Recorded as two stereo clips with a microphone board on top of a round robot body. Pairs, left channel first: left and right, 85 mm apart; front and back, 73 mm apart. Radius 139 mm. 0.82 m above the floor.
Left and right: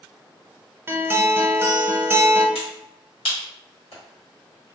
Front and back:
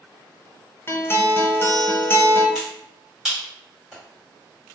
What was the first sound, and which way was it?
A guitar, 40° right.